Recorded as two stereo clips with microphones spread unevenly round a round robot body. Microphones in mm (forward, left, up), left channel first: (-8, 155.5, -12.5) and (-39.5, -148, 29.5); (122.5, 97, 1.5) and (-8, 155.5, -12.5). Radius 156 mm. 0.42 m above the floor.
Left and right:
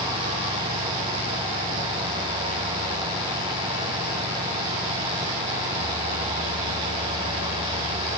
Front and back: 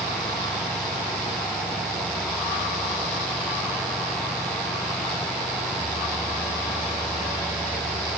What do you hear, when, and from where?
Only background noise.